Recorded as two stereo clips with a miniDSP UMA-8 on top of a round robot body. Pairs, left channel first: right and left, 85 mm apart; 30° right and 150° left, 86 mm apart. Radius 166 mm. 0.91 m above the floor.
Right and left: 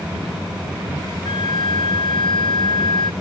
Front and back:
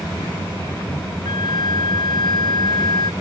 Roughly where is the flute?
Ahead right.